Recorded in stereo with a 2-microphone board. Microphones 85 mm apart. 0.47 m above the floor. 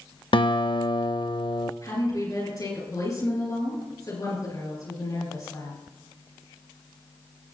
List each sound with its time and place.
0.3 s a guitar: 70° left (ahead or behind), 0.5 m
1.8 s a woman speaking: 45° left (ahead or behind), 7 m